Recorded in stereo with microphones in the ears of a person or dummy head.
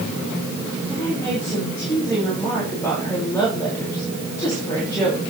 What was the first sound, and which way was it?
A woman speaking, 10° left (ahead or behind).